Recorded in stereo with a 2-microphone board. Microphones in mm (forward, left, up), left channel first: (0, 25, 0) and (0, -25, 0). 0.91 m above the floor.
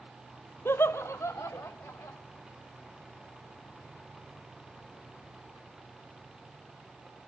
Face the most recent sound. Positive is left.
turn(degrees=70)  # may be behind; listen again after turning